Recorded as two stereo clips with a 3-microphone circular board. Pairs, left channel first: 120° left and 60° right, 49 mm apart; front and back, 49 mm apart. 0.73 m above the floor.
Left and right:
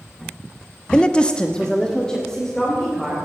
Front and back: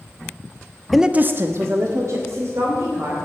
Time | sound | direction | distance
0.9 | a woman speaking | 90° left | 0.6 m